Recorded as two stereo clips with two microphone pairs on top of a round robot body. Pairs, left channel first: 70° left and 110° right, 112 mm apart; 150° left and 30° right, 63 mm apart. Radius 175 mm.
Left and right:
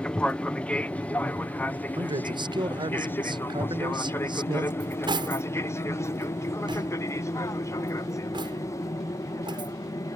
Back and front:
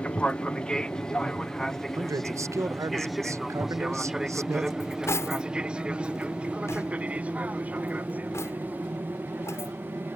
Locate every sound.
0.0 s an aircraft: 130° left; by 10.2 s 20° left
2.0 s a man speaking: 65° right
4.8 s cutlery clinking: 160° right